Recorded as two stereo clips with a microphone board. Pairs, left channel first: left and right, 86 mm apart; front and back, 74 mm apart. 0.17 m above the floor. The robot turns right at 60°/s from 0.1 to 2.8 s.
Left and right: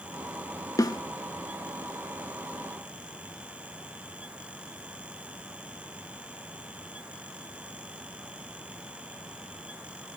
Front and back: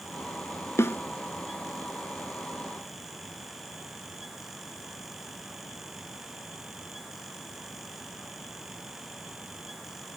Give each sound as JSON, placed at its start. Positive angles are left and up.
{"t": 0.8, "sound": "a snare drum", "azimuth_deg": 45, "distance_m": 0.5}